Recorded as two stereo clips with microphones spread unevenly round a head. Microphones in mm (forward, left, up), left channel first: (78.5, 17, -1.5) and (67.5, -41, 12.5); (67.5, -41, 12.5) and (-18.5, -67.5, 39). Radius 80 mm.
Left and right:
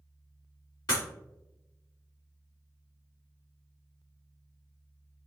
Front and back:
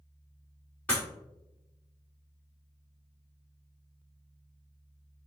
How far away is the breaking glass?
About 1.8 m.